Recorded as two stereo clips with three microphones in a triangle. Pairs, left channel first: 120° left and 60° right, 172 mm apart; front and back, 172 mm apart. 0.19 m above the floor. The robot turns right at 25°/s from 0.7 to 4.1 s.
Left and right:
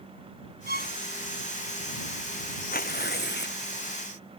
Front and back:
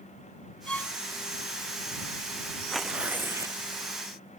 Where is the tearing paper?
90° left; by 3.6 s 110° left.